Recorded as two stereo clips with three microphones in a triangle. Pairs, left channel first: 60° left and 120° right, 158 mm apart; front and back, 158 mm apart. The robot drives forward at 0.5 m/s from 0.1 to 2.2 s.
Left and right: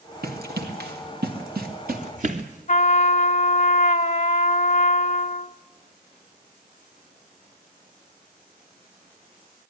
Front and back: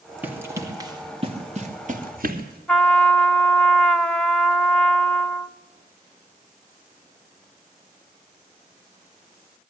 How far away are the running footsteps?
About 3 m.